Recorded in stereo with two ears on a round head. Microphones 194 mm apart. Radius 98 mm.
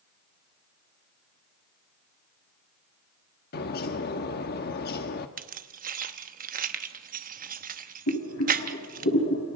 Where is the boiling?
60° left (ahead or behind), 5 m.